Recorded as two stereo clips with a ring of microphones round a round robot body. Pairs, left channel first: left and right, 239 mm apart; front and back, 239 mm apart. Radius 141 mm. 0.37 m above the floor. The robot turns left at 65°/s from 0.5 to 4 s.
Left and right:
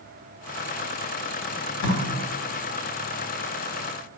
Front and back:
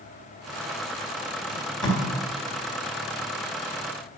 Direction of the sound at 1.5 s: 110° left.